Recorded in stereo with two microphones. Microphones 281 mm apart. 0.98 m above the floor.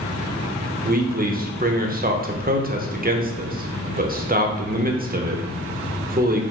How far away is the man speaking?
About 0.6 m.